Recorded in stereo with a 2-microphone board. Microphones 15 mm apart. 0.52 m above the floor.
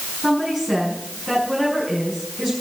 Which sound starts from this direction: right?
A woman speaking, at 0.2 s.